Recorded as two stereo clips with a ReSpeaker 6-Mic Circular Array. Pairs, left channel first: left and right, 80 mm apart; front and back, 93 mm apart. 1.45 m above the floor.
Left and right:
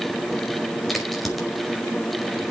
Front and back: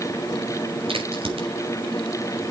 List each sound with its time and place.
0.9 s a crack: straight behind, 5 m